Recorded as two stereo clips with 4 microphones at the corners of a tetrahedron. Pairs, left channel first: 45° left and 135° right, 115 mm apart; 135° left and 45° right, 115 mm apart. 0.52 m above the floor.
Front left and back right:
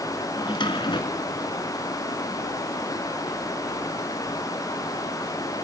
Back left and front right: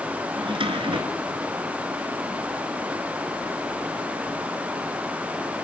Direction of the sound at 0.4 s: Straight ahead.